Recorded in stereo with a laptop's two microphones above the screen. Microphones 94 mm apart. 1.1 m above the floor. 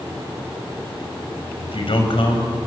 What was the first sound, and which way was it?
A man speaking, 70° left (ahead or behind).